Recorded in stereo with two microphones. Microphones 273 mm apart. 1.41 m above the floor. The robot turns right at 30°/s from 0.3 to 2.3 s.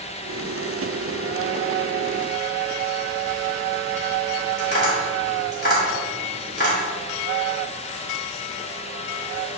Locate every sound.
4.6 s tapping: 35° left (ahead or behind), 2.5 m